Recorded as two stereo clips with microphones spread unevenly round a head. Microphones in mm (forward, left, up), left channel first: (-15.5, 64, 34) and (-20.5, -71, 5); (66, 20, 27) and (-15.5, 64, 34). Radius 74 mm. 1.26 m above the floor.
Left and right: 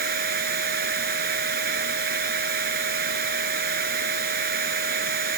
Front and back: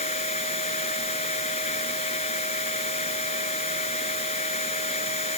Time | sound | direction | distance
0.0 | a machine running | 65° right | ?